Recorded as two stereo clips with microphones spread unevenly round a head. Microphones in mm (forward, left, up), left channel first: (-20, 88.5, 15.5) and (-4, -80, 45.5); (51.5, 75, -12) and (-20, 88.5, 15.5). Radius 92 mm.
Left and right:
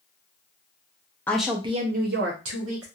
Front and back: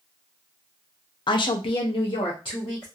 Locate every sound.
1.3 s a woman speaking: 15° left, 0.6 m; by 2.9 s 70° right, 1.4 m